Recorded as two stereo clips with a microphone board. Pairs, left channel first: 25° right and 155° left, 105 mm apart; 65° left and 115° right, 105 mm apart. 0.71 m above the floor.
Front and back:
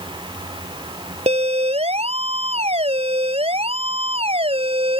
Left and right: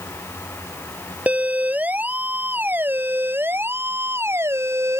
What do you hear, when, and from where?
1.3 s a siren: 170° left; by 5.0 s 175° right